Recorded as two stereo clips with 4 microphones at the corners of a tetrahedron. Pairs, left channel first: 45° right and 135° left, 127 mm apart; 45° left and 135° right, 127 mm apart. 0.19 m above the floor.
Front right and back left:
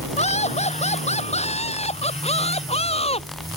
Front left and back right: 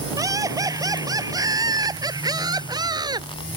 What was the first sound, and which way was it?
Laughter, 70° right.